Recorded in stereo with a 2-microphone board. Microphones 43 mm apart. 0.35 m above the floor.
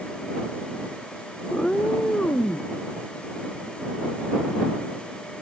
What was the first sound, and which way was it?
A cat meowing, 20° left (ahead or behind).